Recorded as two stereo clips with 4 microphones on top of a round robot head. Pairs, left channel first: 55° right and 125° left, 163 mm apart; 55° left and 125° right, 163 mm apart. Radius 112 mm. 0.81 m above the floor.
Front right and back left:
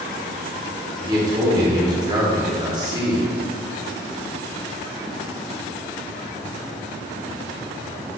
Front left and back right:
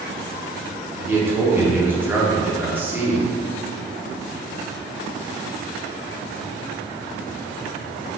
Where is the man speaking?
165° left, 1.0 m.